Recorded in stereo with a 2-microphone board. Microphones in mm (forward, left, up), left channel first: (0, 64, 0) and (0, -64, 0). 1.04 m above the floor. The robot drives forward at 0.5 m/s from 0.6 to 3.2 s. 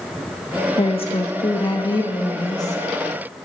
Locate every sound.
0.8 s a woman speaking: 50° left (ahead or behind), 1.1 m; by 2.8 s 25° left (ahead or behind), 1.9 m